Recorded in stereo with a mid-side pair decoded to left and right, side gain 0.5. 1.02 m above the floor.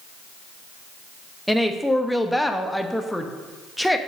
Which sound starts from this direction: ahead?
A woman speaking, at 1.5 s.